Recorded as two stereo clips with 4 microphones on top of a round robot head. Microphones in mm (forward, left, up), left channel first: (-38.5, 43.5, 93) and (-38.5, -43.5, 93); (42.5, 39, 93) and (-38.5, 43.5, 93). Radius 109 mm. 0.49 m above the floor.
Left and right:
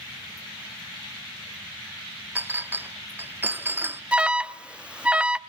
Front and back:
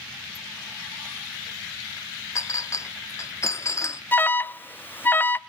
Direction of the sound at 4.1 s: 25° right.